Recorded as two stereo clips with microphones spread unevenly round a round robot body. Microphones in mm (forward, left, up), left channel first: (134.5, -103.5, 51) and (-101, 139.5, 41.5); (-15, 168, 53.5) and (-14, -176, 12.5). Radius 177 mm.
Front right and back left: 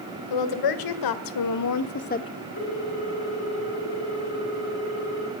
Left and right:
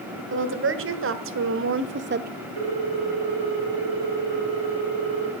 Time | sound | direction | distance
0.3 | a woman speaking | 35° right | 2.5 m
2.6 | a ringtone | 100° right | 5 m